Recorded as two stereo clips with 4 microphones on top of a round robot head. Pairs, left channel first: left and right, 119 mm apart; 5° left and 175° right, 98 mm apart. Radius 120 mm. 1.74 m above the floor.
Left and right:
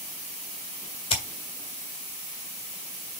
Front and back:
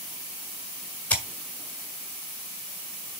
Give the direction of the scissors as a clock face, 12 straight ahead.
10 o'clock.